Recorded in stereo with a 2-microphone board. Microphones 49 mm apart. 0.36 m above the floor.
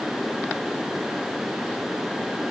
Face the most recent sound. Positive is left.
No sound to turn to.